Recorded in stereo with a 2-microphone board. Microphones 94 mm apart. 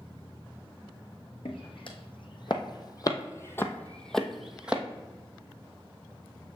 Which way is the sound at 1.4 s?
65° left (ahead or behind).